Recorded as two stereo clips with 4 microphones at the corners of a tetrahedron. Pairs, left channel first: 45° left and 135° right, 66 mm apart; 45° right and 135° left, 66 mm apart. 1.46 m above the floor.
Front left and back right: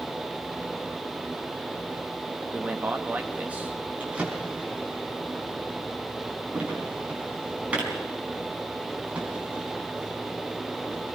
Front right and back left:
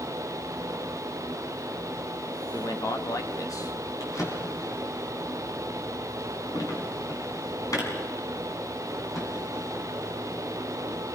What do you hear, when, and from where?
2.5 s a man speaking: 70° right, 1.8 m
4.0 s a drawer: 65° right, 4 m